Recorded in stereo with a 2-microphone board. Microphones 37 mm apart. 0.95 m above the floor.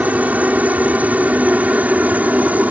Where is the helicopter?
40° right (ahead or behind).